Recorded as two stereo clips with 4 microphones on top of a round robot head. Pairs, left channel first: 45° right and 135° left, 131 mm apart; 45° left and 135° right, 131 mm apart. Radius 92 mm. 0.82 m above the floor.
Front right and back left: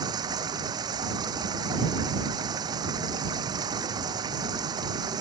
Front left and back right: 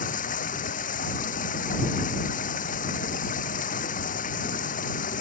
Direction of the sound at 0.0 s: 70° left.